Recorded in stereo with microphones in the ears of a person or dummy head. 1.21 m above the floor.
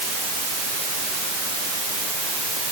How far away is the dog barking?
I don't hear a dog barking.